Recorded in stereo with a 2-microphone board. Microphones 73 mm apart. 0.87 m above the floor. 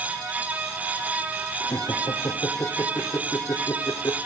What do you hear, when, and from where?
1.6 s laughter: 55° left (ahead or behind), 2 m